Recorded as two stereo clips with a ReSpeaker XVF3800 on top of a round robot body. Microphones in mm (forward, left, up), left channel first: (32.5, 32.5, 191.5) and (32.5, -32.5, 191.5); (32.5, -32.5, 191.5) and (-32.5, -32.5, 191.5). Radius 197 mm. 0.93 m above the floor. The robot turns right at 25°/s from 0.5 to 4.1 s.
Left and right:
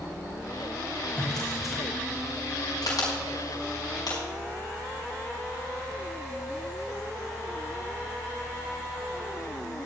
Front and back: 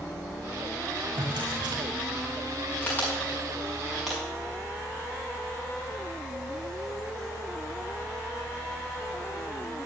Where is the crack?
65° left, 5.5 m; by 4.2 s 95° left, 5.5 m.